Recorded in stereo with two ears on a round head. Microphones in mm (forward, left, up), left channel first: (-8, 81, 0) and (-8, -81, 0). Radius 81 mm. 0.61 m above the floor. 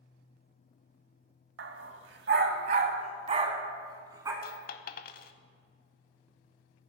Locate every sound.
1.6 s a dog barking: 75° right (ahead or behind), 1.0 m; by 4.3 s 20° right (ahead or behind), 1.5 m
4.4 s a dropped coin: 55° left (ahead or behind), 0.6 m